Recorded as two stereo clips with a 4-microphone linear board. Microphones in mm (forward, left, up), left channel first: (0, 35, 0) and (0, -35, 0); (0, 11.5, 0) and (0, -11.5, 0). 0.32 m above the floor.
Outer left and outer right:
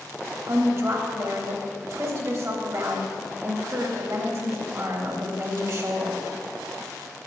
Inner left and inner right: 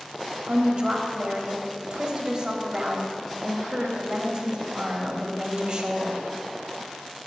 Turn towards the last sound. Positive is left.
turn(degrees=-45)  # may be behind; listen again after turning